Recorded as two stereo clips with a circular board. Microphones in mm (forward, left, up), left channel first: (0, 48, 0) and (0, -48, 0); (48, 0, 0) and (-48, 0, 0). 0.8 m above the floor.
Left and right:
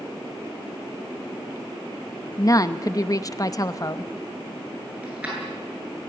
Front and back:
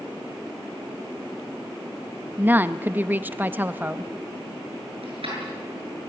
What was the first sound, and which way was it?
A woman speaking, 120° left.